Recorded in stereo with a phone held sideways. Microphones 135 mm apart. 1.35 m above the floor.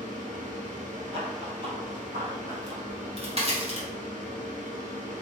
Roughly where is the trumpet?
No trumpet in this recording.